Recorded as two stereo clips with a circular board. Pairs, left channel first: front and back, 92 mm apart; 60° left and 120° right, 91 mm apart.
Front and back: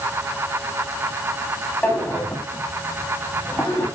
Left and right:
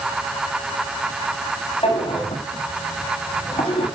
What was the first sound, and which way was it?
A drawer, 75° left.